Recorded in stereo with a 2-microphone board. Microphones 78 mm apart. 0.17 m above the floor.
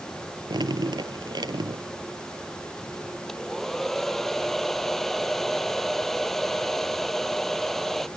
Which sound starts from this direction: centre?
A hair dryer, at 3.3 s.